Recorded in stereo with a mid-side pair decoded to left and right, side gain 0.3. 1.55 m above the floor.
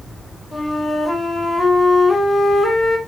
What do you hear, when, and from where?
0.5 s a flute: 65° left, 4 m